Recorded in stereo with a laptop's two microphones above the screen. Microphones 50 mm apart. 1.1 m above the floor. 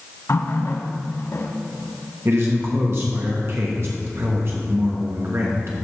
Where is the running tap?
70° left (ahead or behind), 1.2 m.